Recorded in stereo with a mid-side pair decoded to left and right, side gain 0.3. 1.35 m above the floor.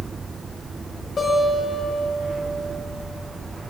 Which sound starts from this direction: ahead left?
A guitar, at 1.2 s.